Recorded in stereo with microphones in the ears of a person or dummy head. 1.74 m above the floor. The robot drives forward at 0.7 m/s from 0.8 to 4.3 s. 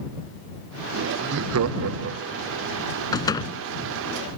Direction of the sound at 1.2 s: 50° right (ahead or behind).